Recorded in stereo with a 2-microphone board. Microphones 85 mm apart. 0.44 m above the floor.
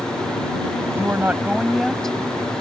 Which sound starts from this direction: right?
A woman speaking, at 0.9 s.